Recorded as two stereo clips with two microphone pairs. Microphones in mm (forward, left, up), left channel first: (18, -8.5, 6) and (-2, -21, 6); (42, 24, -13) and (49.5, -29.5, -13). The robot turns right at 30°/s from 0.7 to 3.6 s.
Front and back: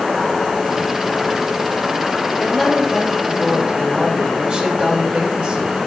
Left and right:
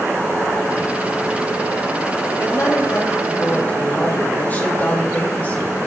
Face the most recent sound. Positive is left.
turn(degrees=155)